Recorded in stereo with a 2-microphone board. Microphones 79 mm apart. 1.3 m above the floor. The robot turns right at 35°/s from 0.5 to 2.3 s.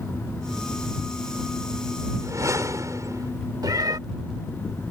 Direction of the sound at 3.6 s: 55° right (ahead or behind).